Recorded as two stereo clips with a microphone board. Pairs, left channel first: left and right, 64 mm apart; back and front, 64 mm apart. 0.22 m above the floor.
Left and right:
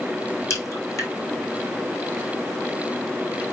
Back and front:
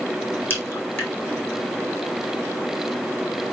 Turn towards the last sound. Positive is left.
turn(degrees=125)